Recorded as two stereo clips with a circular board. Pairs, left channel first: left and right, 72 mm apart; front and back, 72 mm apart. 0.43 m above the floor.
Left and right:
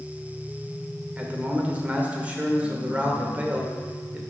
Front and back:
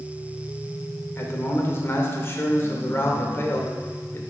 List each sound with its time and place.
1.2 s a man speaking: 30° right, 1.0 m